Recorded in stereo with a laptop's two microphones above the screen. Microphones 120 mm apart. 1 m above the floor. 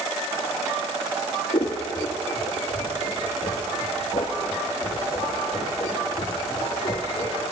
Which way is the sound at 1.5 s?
55° left (ahead or behind).